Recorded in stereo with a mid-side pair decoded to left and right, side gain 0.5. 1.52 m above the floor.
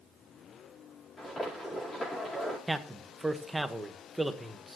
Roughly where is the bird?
I don't hear a bird.